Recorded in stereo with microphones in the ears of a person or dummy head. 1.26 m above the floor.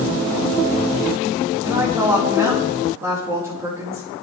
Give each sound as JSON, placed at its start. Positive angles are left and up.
{"t": 1.6, "sound": "a woman speaking", "side_deg": -15, "distance_m": 5.0}